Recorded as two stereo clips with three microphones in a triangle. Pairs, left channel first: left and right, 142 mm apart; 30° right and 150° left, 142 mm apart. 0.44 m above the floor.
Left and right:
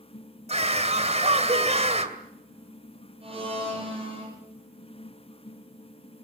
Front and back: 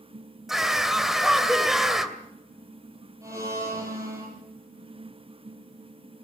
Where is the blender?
140° right, 7.5 m.